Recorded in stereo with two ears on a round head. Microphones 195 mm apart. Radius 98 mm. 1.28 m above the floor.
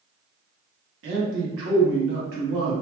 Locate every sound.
1.0 s a man speaking: 60° right (ahead or behind), 1.1 m